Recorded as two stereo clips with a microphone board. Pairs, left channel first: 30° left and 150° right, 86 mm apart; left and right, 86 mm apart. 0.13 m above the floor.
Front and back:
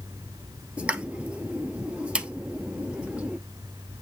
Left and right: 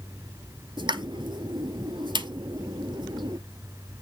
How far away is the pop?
About 0.7 m.